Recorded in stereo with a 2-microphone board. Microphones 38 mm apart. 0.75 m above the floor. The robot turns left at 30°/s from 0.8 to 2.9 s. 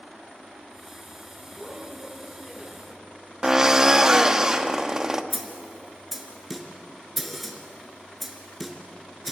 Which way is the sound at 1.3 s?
170° right.